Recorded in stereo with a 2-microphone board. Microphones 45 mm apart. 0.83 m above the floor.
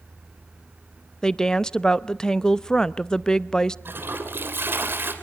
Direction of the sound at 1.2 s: 15° left (ahead or behind).